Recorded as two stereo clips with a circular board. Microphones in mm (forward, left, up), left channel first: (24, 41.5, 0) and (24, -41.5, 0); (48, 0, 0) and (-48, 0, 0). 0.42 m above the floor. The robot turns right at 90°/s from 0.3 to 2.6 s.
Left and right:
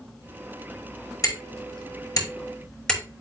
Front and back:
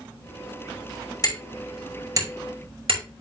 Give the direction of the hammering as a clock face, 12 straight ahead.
10 o'clock.